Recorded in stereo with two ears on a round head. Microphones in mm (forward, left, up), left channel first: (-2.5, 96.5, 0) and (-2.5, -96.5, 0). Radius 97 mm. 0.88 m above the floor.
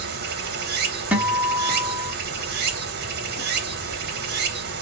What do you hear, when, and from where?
0.0 s running water: 50° right (ahead or behind), 0.8 m
1.1 s a guitar: 5° right (ahead or behind), 1.2 m